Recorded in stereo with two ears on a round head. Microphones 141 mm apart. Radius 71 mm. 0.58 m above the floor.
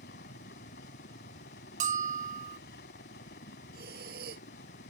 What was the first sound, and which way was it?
A helicopter, 70° left (ahead or behind).